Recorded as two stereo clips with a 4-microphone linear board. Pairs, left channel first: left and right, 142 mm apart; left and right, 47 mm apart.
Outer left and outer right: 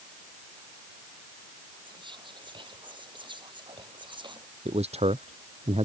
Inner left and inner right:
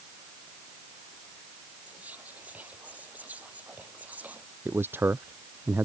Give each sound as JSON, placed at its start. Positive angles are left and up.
{"t": 1.9, "sound": "whispering", "side_deg": -35}
{"t": 4.7, "sound": "a man speaking", "side_deg": -45}